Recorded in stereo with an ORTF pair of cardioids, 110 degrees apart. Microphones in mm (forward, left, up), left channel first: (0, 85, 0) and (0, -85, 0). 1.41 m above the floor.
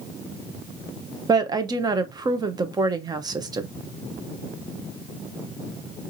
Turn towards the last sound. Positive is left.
turn(degrees=-25)